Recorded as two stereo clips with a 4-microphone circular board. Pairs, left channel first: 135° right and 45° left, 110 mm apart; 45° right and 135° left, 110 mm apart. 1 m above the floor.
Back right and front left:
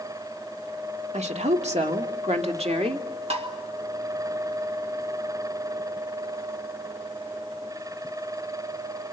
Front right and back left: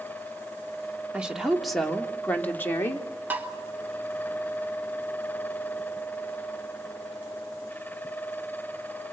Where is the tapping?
60° left, 2.5 m.